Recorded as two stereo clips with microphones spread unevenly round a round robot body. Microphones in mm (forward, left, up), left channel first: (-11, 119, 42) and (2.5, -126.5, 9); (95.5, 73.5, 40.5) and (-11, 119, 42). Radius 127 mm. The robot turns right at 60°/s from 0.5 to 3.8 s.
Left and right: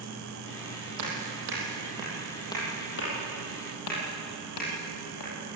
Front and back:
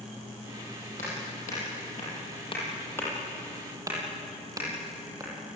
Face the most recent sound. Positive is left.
turn(degrees=95)